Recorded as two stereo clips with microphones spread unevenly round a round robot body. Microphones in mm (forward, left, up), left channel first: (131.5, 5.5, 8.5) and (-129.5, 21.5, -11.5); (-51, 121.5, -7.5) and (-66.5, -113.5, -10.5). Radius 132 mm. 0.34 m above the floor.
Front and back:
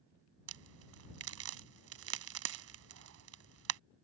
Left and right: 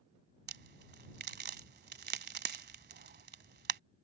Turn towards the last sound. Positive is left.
turn(degrees=-145)